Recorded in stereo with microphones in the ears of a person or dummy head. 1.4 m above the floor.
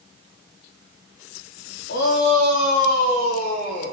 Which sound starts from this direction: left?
A shout, at 1.9 s.